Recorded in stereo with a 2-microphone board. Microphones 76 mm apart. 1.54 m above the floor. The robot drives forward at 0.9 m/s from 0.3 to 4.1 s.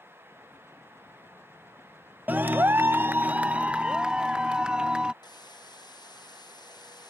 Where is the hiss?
70° left (ahead or behind).